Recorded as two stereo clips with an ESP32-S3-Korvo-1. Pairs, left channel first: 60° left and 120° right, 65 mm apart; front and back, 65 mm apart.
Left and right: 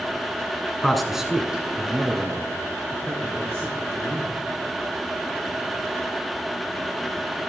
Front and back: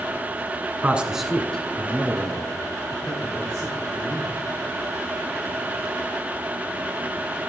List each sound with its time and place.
0.8 s a man speaking: 140° left, 1.2 m; by 4.4 s 55° right, 5 m